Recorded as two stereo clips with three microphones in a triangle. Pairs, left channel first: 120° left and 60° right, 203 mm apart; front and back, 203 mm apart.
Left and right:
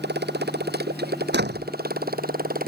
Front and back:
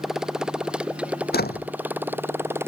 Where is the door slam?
35° right.